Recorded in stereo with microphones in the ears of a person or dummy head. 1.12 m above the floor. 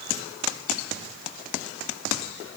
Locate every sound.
Only background noise.